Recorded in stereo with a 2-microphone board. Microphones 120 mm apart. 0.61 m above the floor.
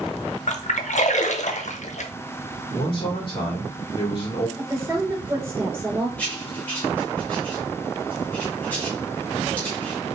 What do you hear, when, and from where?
0.5 s a splash: 70° left (ahead or behind), 0.6 m
2.7 s a man speaking: 45° left (ahead or behind), 2.5 m
4.6 s a woman speaking: 20° right (ahead or behind), 2.5 m
6.2 s writing: 15° left (ahead or behind), 2 m